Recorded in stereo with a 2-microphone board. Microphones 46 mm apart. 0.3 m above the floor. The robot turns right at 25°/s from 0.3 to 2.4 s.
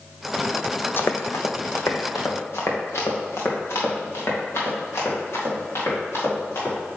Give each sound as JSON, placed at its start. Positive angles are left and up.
{"t": 1.0, "sound": "running footsteps", "side_deg": 50, "distance_m": 0.5}